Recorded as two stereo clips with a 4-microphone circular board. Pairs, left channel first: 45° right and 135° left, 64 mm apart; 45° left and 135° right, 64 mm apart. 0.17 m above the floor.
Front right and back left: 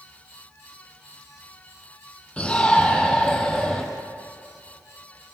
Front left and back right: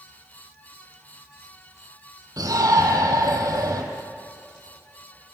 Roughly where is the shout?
Behind right.